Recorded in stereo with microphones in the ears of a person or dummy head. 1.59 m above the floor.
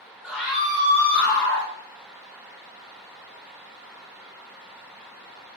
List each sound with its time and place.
0.2 s a scream: 5° left (ahead or behind), 1.2 m; by 1.7 s 75° left (ahead or behind), 2.0 m